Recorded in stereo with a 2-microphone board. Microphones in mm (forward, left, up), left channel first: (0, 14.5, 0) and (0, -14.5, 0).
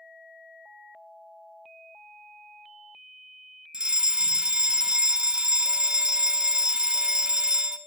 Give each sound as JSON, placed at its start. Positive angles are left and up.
{"t": 3.7, "sound": "a fire alarm", "side_deg": -30, "distance_m": 1.7}